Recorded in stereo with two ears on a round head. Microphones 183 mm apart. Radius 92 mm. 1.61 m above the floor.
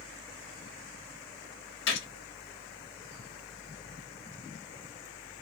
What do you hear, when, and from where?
1.9 s a gunshot: 65° left (ahead or behind), 0.8 m